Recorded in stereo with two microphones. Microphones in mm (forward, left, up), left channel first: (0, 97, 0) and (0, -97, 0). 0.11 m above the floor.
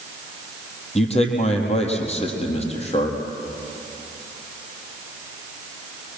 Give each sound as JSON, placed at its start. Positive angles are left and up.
{"t": 0.9, "sound": "a man speaking", "side_deg": 35, "distance_m": 3.5}